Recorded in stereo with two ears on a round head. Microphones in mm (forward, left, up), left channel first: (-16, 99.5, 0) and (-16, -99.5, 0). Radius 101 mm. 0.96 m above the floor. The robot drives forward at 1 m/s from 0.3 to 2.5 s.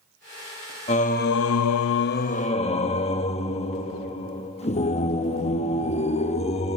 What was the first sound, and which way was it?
Singing, 30° left (ahead or behind).